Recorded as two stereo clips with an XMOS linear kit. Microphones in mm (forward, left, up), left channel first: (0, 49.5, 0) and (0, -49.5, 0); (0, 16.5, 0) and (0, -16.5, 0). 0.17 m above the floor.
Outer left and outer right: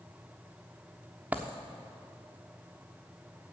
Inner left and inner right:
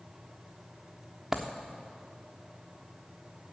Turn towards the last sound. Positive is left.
turn(degrees=-15)  # may be behind; listen again after turning